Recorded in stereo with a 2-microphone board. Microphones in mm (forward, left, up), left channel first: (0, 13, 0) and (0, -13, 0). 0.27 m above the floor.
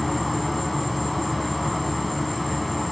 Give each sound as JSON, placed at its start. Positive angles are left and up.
{"t": 0.0, "sound": "an insect", "side_deg": 5, "distance_m": 0.8}